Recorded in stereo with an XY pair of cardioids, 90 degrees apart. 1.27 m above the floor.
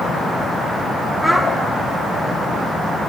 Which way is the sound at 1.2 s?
Straight ahead.